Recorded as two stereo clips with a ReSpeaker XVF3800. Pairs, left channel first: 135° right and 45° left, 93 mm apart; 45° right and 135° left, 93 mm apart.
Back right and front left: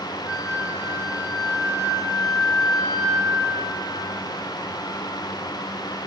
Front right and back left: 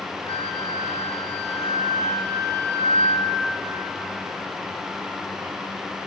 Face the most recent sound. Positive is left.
turn(degrees=-40)